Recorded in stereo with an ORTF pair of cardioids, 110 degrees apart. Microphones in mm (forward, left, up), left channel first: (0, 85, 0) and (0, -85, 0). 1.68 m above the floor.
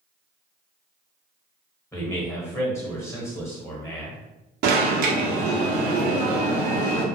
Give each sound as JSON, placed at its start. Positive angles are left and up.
{"t": 1.9, "sound": "a man speaking", "azimuth_deg": 15, "distance_m": 1.3}
{"t": 4.6, "sound": "an alarm", "azimuth_deg": -65, "distance_m": 0.8}